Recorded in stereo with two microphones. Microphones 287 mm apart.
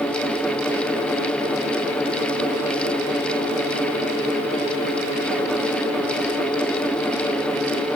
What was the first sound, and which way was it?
Only background noise.